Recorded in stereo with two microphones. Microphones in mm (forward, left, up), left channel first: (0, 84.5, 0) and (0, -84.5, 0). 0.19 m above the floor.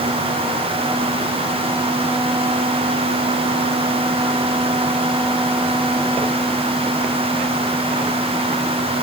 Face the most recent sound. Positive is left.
No sound to turn to.